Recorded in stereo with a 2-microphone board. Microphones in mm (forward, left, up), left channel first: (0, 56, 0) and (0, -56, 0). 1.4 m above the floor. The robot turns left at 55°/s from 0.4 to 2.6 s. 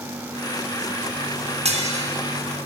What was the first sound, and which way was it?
Dishes clattering, 65° right (ahead or behind).